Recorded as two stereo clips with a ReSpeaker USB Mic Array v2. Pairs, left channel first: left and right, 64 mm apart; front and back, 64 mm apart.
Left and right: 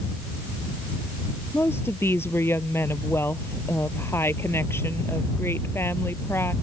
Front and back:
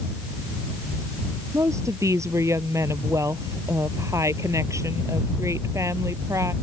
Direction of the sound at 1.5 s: 140° left.